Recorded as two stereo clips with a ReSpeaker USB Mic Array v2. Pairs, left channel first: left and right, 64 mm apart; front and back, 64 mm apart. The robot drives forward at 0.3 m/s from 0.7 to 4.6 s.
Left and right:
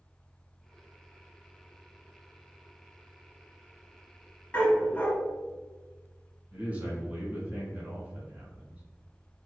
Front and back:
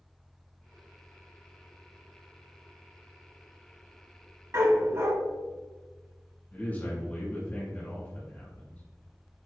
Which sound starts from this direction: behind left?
A dog barking, at 4.5 s.